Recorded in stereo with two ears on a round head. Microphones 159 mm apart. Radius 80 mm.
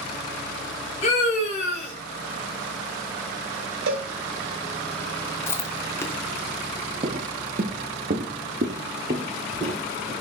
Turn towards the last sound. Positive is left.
turn(degrees=-35)  # may be behind; listen again after turning